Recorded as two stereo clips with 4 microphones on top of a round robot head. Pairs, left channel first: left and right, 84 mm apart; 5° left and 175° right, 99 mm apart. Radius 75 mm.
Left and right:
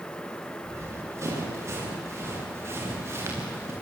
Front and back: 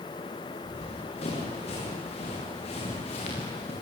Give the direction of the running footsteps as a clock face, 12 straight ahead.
1 o'clock.